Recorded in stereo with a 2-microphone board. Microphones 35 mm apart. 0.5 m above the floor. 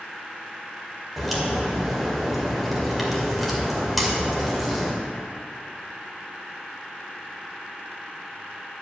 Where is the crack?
Centre (ahead or behind), 2 m.